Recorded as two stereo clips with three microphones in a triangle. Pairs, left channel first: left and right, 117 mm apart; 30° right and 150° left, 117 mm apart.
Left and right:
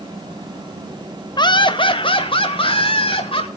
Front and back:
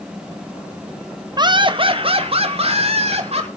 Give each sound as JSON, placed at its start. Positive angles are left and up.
{"t": 1.4, "sound": "laughter", "azimuth_deg": 120, "distance_m": 1.2}